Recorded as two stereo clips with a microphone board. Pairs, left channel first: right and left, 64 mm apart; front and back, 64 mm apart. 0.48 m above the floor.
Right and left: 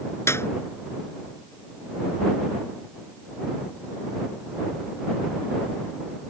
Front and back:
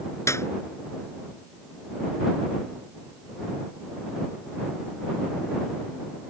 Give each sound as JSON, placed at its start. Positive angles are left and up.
{"t": 0.3, "sound": "a clap", "azimuth_deg": -45}